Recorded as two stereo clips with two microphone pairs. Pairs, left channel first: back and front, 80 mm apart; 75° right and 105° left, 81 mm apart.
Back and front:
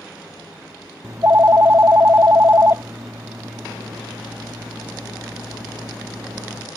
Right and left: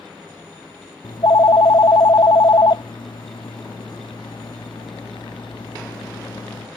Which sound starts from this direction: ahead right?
A phone ringing, at 1.0 s.